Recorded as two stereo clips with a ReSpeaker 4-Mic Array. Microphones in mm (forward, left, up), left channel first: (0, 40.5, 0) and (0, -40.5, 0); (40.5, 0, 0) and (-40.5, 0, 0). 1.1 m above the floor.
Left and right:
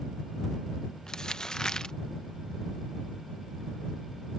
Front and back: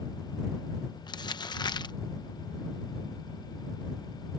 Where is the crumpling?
10° left.